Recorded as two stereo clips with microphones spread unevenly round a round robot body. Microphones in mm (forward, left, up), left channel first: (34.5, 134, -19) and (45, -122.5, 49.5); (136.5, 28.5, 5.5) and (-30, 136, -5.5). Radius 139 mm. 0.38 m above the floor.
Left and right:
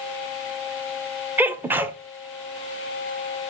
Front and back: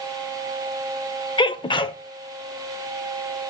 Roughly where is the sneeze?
Ahead.